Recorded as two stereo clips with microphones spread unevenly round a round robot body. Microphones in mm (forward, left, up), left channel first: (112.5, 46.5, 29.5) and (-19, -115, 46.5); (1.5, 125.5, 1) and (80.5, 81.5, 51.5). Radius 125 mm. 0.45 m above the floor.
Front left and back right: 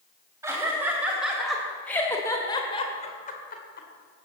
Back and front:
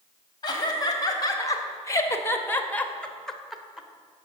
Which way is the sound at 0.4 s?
150° left.